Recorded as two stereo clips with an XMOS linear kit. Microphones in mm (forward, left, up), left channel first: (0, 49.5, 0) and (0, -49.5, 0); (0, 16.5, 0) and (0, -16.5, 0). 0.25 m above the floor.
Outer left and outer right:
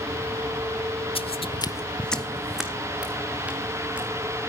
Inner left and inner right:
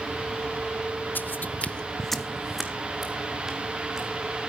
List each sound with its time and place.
1.1 s footsteps: 70° left (ahead or behind), 0.6 m; by 4.1 s 15° right (ahead or behind), 3 m